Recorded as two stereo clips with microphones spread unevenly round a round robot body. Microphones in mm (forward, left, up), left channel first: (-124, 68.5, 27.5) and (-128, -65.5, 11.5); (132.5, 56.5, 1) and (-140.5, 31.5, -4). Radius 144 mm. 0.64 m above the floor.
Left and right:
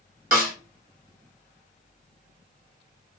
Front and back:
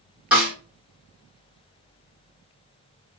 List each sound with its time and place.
0.3 s a snare drum: 90° right, 1.1 m